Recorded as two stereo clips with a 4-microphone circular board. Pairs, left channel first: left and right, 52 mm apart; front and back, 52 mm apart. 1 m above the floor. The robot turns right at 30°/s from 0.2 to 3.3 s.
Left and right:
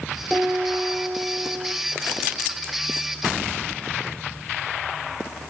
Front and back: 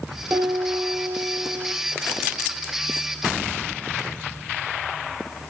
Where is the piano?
160° right, 5 m; by 1.7 s 120° right, 5 m.